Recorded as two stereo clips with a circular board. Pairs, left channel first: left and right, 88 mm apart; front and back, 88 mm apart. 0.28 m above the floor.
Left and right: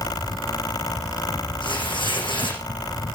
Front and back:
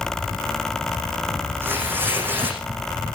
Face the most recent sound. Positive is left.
turn(degrees=115)